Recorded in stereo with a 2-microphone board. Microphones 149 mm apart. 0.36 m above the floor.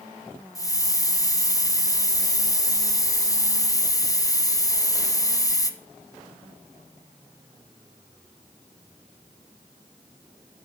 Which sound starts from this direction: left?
A hiss, at 0.6 s.